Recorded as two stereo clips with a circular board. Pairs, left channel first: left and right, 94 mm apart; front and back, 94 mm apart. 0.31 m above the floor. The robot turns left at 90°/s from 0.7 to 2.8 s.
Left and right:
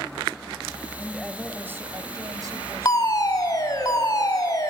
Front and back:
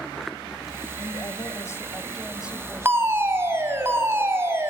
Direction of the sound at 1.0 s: 25° left.